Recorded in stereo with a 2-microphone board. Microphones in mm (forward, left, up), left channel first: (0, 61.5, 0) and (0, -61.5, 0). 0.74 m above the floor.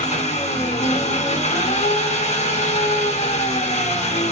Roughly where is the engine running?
Left.